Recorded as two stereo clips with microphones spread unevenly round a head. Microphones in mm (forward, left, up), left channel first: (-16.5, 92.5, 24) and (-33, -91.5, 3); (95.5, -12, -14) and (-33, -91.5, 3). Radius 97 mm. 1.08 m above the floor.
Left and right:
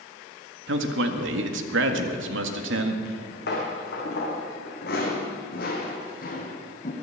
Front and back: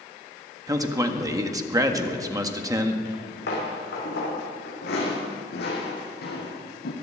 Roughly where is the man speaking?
Right.